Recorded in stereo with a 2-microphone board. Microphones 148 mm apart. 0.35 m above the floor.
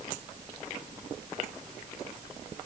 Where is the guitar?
I don't hear a guitar.